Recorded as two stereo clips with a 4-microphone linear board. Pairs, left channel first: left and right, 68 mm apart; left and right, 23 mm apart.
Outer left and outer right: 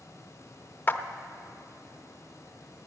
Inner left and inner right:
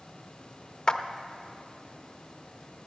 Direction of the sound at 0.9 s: 30° left (ahead or behind).